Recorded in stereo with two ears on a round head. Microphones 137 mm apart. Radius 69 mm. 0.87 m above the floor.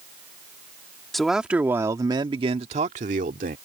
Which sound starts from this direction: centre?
A man speaking, at 1.1 s.